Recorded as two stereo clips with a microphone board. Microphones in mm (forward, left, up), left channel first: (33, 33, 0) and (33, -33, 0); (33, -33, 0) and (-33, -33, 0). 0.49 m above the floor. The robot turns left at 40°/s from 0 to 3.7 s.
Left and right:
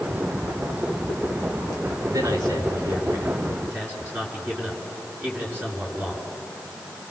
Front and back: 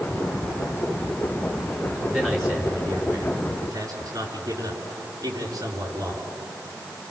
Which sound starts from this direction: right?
A man speaking, at 2.1 s.